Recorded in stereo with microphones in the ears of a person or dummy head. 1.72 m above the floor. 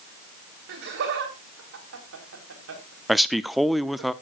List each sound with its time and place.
0.7 s laughter: 60° right (ahead or behind), 3.5 m; by 4.1 s 80° right, 4.5 m
3.1 s a man speaking: 5° right (ahead or behind), 0.6 m